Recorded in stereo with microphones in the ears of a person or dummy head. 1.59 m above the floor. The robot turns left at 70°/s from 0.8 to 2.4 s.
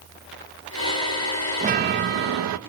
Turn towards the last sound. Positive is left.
turn(degrees=-90)